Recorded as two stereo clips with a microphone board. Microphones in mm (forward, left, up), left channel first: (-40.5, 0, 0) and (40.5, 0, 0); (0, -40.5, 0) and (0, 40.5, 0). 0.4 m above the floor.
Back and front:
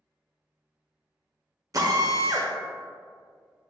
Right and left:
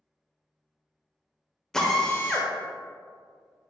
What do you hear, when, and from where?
1.7 s a drill: 10° right, 0.6 m